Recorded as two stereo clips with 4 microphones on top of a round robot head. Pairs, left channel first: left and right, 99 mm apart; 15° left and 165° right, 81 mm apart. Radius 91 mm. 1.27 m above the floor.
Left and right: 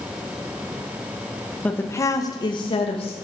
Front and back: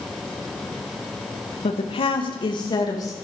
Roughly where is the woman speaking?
Ahead.